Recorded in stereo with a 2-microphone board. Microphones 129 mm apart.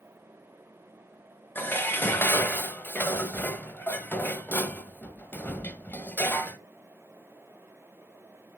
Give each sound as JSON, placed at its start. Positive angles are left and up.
{"t": 1.6, "sound": "dishes clattering", "side_deg": 15, "distance_m": 0.7}